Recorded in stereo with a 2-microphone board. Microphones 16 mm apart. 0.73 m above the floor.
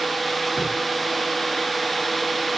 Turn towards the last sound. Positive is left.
turn(degrees=-45)  # may be behind; listen again after turning